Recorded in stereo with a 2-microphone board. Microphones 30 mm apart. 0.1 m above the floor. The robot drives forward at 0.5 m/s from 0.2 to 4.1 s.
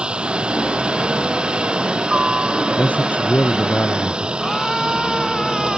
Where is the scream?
10° left (ahead or behind).